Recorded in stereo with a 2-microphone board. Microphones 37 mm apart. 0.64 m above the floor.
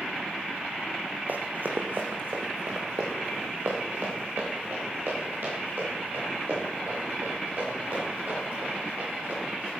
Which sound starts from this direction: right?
Running footsteps, at 1.3 s.